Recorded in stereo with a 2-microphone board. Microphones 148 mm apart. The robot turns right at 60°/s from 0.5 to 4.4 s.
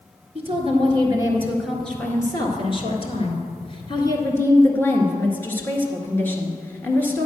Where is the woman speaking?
75° right, 1.9 m; by 7.3 s 160° left, 1.9 m.